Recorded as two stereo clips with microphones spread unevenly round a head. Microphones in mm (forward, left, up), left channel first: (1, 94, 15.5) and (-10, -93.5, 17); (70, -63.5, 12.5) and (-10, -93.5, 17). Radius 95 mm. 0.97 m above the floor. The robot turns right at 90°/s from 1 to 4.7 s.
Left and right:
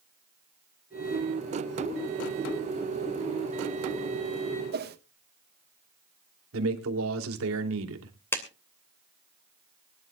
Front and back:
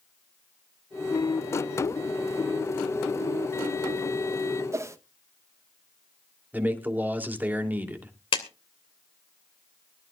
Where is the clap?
10° left, 2.5 m.